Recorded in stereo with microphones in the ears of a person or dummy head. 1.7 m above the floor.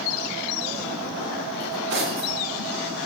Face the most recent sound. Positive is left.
turn(degrees=-65)  # may be behind; listen again after turning